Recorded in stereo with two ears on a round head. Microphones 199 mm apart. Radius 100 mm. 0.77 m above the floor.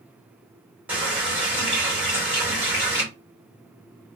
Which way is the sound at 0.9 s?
5° right (ahead or behind).